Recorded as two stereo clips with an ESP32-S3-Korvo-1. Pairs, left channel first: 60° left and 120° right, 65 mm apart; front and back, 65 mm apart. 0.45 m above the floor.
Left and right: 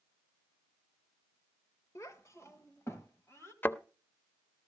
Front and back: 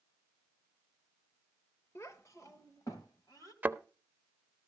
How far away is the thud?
About 0.5 m.